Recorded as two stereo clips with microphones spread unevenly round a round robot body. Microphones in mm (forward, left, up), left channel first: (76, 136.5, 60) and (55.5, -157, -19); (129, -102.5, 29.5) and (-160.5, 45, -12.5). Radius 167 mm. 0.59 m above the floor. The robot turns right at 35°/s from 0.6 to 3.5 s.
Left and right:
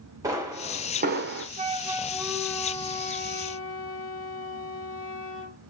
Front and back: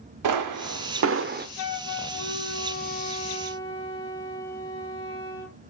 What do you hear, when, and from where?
0.2 s a pop: 170° right, 0.7 m; by 1.5 s 140° right, 0.7 m
1.6 s a flute: 40° right, 0.9 m; by 5.6 s 30° left, 0.9 m